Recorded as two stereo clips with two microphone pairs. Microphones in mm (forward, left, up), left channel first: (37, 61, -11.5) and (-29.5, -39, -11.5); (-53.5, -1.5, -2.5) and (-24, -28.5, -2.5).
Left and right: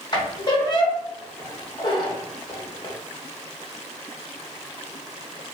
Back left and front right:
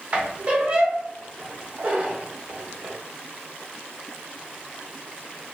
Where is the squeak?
10° left, 0.6 m.